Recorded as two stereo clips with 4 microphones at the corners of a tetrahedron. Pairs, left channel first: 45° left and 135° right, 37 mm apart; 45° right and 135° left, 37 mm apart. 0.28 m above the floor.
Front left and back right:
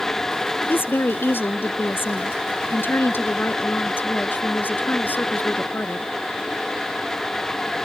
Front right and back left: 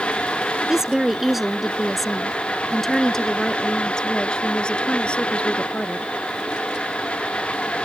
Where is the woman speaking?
60° left; by 6.1 s 10° left.